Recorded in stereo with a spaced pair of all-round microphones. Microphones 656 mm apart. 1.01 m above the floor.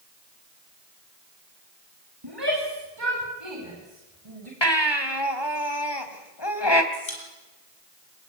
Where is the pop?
45° left (ahead or behind), 6.5 m.